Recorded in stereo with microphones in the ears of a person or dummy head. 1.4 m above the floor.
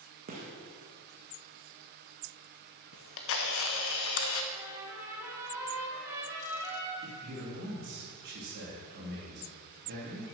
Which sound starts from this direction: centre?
A trumpet, at 4.5 s.